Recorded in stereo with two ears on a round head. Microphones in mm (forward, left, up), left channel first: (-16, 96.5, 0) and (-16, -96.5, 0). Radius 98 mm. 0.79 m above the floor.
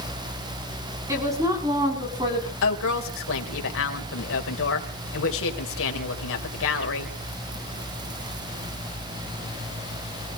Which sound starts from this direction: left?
A woman speaking, at 2.6 s.